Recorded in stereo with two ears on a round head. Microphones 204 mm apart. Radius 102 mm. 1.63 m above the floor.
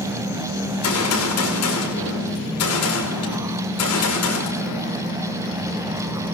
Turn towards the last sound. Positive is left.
turn(degrees=75)  # may be behind; listen again after turning